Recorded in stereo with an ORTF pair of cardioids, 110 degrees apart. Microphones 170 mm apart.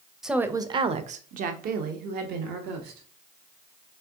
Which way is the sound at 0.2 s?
Straight ahead.